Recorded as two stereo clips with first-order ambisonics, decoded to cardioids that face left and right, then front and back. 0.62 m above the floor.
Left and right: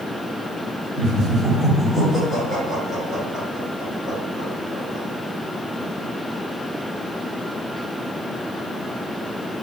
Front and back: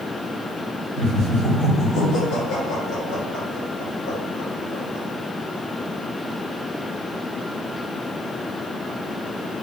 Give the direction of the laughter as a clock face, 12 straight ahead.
1 o'clock.